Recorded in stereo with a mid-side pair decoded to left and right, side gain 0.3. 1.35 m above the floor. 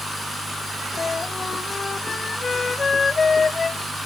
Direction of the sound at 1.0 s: 50° left.